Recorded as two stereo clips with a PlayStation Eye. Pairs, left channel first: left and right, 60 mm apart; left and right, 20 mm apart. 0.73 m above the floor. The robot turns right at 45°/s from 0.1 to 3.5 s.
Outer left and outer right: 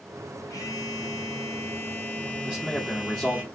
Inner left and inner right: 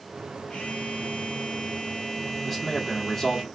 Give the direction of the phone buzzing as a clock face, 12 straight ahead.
9 o'clock.